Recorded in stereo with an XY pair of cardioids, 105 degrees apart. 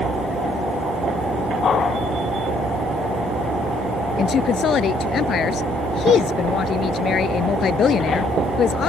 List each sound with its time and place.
4.2 s a woman speaking: 60° left